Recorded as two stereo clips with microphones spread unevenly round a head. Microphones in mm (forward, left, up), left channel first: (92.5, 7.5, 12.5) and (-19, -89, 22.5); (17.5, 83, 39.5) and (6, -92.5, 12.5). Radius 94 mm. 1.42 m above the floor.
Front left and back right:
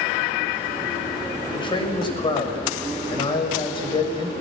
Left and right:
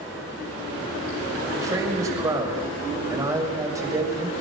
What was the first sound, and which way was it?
A man speaking, 20° right.